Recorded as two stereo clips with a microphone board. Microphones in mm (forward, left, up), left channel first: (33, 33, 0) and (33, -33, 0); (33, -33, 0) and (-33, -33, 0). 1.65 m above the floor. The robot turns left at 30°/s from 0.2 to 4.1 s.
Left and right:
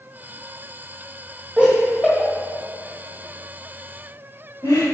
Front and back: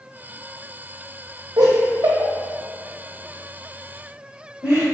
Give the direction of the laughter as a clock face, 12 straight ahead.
5 o'clock.